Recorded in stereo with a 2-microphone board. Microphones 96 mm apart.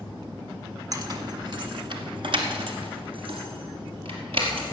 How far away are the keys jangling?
About 0.9 m.